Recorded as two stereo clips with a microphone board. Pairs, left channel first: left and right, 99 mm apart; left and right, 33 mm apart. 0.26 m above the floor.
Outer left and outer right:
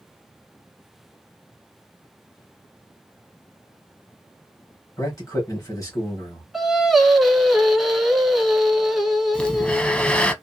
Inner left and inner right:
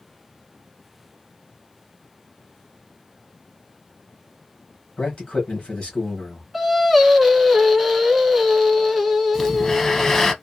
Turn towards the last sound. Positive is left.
turn(degrees=10)  # may be behind; listen again after turning